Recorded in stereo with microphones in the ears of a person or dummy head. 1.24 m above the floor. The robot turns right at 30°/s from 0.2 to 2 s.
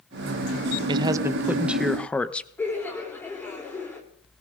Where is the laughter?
15° left (ahead or behind), 3.5 m.